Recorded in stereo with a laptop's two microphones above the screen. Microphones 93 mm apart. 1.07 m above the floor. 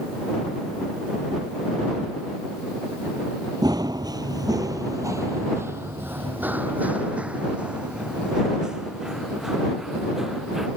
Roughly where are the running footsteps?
Right.